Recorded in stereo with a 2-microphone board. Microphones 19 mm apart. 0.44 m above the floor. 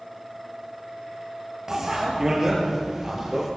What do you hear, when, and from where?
1.7 s a bicycle bell: 30° right (ahead or behind), 7 m; by 3.5 s 25° right (ahead or behind), 8 m